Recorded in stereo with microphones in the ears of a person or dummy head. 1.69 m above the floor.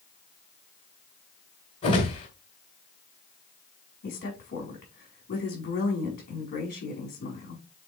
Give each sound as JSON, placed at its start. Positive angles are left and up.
{"t": 1.8, "sound": "a whoosh", "side_deg": 30, "distance_m": 2.0}
{"t": 4.0, "sound": "a woman speaking", "side_deg": 45, "distance_m": 4.5}